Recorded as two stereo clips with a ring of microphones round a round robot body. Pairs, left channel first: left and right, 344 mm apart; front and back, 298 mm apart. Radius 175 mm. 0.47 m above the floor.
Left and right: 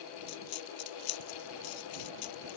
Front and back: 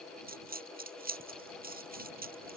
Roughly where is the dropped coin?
Behind left.